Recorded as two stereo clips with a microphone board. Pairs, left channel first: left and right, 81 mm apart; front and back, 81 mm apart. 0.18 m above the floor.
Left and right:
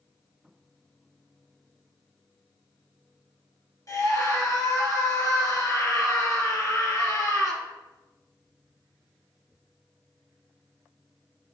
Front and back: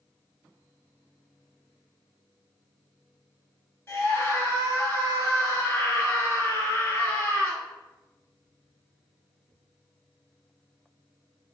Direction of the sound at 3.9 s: 55° left.